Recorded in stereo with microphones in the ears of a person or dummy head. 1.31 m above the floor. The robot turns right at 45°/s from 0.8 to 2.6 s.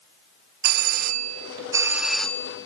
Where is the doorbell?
60° right, 1.4 m; by 2.7 s 20° left, 1.4 m.